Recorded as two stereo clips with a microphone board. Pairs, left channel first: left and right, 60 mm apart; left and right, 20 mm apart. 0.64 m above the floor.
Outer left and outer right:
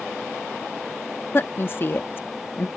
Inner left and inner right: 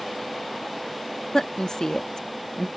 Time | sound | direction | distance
1.3 | a woman speaking | 35° left (ahead or behind) | ?